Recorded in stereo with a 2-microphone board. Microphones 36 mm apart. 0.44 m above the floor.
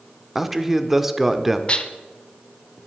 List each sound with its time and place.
0.3 s a man speaking: 10° right (ahead or behind), 0.9 m
1.7 s dishes clattering: 30° left (ahead or behind), 0.9 m